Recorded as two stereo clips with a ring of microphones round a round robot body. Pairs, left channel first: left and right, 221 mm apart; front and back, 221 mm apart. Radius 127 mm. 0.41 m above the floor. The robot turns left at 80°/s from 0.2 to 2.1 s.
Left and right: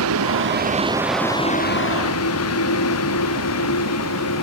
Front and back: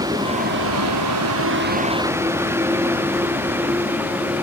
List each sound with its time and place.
0.0 s a vehicle: 105° right; by 4.4 s 100° left